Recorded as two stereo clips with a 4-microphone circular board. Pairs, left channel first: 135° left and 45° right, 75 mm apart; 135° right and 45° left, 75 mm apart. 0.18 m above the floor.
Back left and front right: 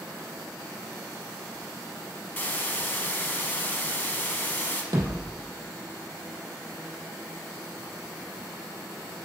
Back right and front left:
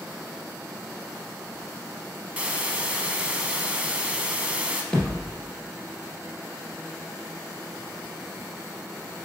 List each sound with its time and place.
2.4 s a hiss: 100° left, 0.5 m
4.9 s a thud: 60° right, 1.6 m